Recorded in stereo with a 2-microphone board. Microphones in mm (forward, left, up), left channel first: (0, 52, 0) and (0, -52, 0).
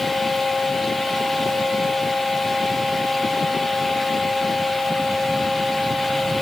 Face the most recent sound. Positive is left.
No sound to turn to.